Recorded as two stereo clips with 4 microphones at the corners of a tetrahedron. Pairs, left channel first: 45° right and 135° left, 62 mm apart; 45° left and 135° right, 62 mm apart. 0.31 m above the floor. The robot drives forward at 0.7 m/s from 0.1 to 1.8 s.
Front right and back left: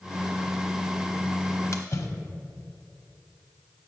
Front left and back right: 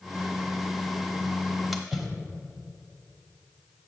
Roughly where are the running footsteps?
I don't hear running footsteps.